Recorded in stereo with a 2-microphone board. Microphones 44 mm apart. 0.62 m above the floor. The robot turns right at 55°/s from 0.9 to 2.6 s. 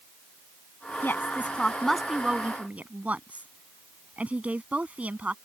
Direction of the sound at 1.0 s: 50° left (ahead or behind).